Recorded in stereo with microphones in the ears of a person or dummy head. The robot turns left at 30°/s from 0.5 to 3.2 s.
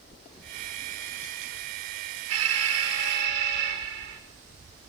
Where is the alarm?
80° right, 5.5 m; by 4.2 s 65° right (ahead or behind), 5.5 m.